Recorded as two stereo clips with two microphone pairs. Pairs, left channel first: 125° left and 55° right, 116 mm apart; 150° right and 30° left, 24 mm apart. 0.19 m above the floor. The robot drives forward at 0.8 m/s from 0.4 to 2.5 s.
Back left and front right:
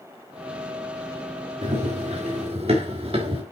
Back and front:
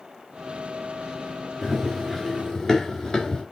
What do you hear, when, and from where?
1.6 s running footsteps: 60° right, 5 m; by 3.4 s 90° right, 3.5 m